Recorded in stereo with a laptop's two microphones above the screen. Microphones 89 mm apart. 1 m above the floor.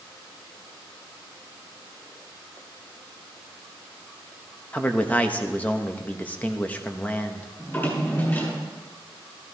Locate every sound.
4.7 s a man speaking: 15° left (ahead or behind), 0.7 m
7.6 s a drawer: 25° left (ahead or behind), 7 m